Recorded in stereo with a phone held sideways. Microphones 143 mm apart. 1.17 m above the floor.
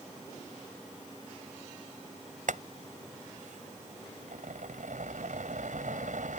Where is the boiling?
75° right (ahead or behind).